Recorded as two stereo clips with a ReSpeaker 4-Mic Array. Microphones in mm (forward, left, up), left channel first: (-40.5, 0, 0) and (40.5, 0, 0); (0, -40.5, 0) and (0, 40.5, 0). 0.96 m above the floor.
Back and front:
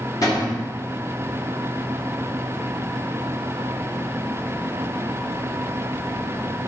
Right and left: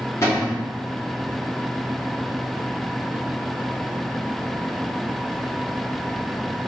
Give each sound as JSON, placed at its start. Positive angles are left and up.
{"t": 0.2, "sound": "a cupboard door", "azimuth_deg": -140, "distance_m": 1.3}